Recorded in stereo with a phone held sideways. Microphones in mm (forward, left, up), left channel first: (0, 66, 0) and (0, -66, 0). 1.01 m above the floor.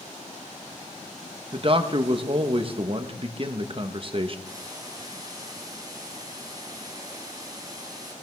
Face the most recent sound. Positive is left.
turn(degrees=-30)  # may be behind; listen again after turning